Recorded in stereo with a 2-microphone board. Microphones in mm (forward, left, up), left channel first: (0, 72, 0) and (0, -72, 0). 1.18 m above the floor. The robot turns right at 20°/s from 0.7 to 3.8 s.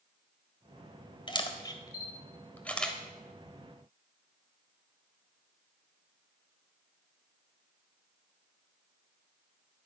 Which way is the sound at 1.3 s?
35° left (ahead or behind).